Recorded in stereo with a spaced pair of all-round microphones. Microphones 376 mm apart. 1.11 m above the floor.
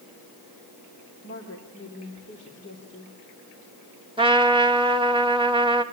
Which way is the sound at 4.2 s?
15° right (ahead or behind).